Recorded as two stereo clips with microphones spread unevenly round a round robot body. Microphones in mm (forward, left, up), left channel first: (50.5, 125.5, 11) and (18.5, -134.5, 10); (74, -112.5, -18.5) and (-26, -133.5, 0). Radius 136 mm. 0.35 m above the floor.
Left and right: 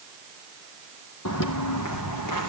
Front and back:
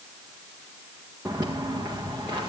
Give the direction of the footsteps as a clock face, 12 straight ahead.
8 o'clock.